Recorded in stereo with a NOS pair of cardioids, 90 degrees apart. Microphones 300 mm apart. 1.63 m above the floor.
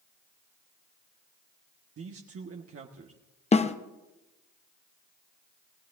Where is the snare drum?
20° left, 0.9 m.